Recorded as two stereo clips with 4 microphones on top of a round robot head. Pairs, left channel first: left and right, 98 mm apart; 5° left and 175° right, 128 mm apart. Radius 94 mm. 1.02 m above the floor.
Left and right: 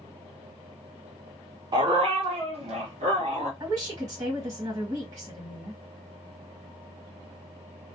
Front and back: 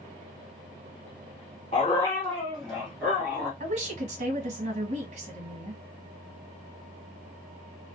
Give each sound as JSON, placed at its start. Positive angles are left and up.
{"t": 1.7, "sound": "a dog barking", "azimuth_deg": -55, "distance_m": 0.6}
{"t": 3.6, "sound": "a woman speaking", "azimuth_deg": -145, "distance_m": 1.4}